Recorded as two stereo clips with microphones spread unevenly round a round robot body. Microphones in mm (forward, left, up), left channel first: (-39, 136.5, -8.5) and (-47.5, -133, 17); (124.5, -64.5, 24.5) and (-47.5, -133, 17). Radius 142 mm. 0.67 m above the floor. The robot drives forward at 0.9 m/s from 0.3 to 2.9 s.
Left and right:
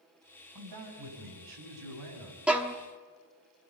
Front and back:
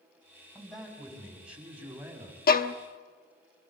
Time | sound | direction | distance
0.6 | a man speaking | 65° right | 6 m
2.5 | a violin | straight ahead | 1.1 m